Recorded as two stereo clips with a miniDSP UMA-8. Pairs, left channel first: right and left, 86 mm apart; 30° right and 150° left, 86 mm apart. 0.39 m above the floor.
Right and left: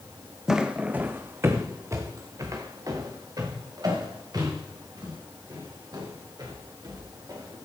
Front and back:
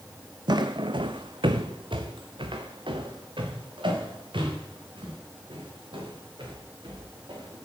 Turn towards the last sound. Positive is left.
turn(degrees=130)